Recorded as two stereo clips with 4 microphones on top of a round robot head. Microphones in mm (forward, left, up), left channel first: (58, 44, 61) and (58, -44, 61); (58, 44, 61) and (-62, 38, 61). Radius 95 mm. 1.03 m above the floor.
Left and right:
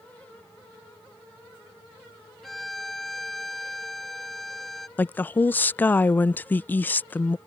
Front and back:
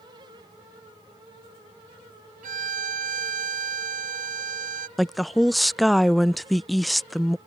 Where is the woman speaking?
95° left.